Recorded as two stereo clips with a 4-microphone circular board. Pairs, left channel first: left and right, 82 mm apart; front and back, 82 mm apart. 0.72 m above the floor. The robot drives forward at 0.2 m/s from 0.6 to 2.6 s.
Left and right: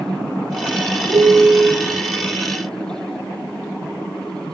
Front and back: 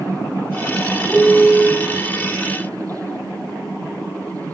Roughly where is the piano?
Right.